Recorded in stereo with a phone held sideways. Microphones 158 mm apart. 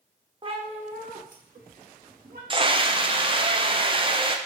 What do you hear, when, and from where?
0.4 s a cat meowing: 35° right (ahead or behind), 0.7 m; by 2.4 s 80° right, 1.3 m
2.5 s a scream: 35° right (ahead or behind), 0.6 m